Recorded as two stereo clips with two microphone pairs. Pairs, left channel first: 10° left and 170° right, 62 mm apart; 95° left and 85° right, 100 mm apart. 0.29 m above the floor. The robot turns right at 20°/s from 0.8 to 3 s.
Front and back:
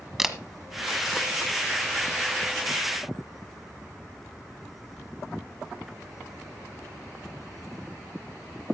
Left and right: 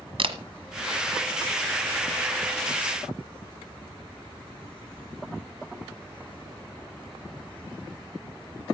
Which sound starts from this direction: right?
A camera shutter, at 0.2 s.